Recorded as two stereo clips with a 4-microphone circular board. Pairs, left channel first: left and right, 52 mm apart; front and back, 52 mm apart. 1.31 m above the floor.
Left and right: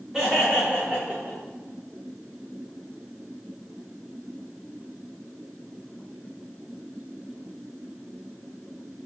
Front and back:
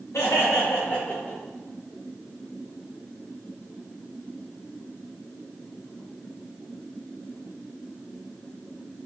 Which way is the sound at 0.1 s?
5° right.